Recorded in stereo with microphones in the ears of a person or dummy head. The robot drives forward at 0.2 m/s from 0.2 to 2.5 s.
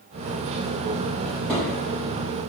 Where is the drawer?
10° left (ahead or behind), 1.6 m; by 1.7 s 5° left (ahead or behind), 1.7 m.